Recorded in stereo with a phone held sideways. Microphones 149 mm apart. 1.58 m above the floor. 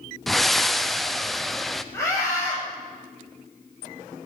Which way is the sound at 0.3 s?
Centre (ahead or behind).